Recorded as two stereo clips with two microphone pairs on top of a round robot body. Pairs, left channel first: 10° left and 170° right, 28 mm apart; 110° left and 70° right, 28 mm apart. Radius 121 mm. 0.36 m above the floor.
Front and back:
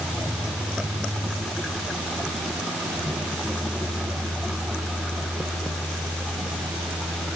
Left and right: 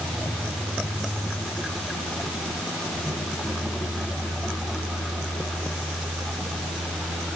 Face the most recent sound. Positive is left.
No sound to turn to.